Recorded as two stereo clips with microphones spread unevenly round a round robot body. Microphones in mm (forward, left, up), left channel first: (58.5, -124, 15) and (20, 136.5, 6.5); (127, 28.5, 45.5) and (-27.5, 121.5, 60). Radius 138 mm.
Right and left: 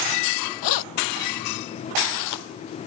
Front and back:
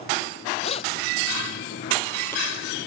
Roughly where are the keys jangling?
Right.